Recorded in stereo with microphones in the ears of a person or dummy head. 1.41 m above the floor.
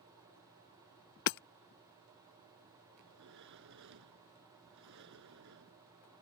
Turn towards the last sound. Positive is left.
turn(degrees=-65)  # may be behind; listen again after turning